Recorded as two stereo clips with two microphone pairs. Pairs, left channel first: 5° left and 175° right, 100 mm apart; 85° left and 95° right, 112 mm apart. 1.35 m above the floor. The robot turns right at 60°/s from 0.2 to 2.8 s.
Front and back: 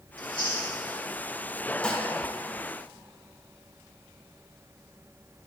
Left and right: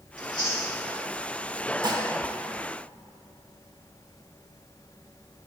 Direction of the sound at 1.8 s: 75° right.